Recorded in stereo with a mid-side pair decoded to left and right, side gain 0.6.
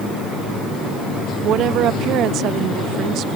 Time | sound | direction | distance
1.4 | a woman speaking | 60° right | ?